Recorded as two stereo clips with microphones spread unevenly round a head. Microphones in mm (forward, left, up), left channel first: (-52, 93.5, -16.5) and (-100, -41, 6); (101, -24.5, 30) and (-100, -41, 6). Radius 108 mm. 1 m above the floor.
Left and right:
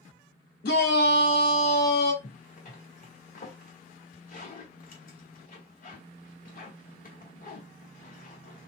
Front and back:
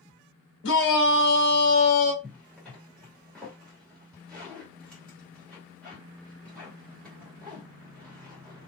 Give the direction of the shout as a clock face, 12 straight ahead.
10 o'clock.